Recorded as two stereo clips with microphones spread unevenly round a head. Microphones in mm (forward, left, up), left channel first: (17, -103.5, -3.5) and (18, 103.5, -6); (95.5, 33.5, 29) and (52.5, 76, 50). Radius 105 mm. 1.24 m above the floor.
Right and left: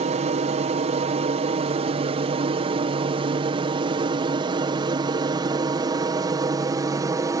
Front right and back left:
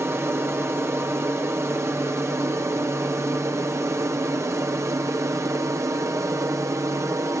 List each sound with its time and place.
0.0 s an aircraft: 100° left; by 7.4 s 150° left